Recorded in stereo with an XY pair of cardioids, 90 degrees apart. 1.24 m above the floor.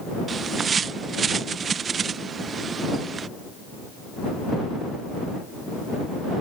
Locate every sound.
0.3 s a bird: 55° right